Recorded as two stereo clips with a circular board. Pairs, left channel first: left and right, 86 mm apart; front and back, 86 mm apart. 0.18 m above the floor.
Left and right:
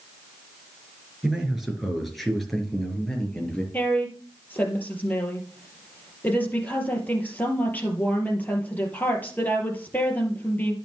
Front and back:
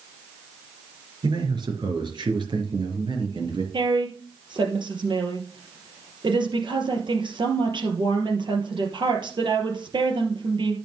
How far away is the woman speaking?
About 3.5 m.